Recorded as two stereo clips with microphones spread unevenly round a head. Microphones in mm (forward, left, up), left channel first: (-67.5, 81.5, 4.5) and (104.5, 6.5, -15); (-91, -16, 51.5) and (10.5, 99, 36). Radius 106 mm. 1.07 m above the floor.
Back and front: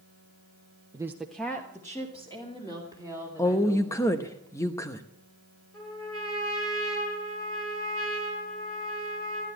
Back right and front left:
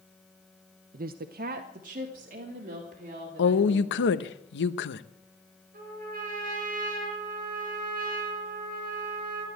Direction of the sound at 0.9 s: 40° left.